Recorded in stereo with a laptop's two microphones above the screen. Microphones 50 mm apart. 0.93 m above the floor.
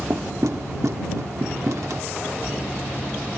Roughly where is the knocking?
Right.